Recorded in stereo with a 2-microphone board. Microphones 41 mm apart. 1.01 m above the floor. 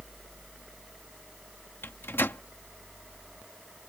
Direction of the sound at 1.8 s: 75° left (ahead or behind).